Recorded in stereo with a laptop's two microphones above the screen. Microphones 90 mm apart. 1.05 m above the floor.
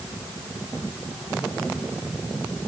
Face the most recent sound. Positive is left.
No sound to turn to.